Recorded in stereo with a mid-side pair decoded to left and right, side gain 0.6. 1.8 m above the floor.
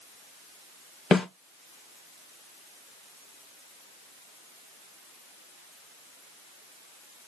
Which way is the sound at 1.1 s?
25° left.